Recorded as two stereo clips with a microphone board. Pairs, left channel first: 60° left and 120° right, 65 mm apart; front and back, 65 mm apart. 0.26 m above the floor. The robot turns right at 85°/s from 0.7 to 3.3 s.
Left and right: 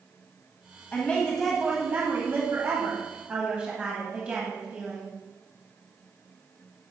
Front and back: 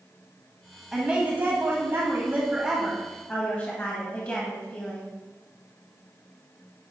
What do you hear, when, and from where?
0.9 s a woman speaking: 100° left, 1.6 m; by 5.1 s 55° right, 1.6 m